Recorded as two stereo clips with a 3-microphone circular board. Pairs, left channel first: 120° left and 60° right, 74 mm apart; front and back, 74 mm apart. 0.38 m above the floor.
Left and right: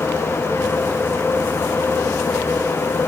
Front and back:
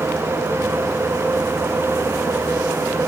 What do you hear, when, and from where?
Only background noise.